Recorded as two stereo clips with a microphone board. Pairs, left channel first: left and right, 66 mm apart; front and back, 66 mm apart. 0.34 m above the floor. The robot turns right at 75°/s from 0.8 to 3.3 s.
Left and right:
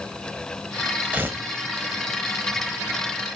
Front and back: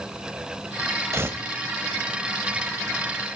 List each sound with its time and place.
1.1 s tearing paper: 145° right, 1.0 m; by 1.4 s 125° right, 1.0 m